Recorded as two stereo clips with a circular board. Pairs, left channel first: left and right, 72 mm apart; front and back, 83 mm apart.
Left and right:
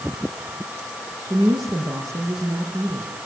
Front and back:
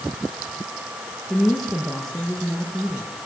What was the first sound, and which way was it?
A woman speaking, 85° right.